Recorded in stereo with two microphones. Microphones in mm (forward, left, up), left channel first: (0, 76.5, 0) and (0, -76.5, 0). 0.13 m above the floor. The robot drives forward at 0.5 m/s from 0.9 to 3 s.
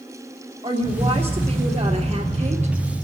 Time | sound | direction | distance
0.6 | a woman speaking | 40° right (ahead or behind) | 3 m